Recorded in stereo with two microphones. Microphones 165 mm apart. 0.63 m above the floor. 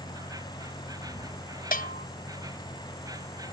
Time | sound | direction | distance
0.0 | an insect | 20° right (ahead or behind) | ?
1.7 | a bell | 60° left (ahead or behind) | ?